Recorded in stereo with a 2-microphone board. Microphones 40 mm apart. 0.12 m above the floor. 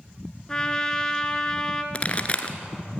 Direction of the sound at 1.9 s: 30° left (ahead or behind).